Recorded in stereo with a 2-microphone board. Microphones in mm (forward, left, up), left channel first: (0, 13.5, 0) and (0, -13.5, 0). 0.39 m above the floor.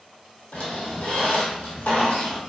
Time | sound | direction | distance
0.5 | a squeak | 70° left (ahead or behind) | 0.9 m